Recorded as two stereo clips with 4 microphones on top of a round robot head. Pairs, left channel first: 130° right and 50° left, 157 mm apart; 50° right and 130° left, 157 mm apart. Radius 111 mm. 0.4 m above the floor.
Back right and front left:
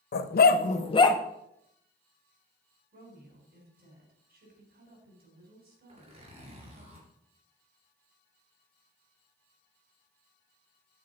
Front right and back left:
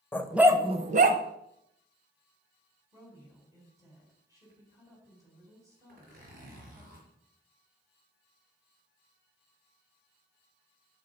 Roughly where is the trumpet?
No trumpet in this recording.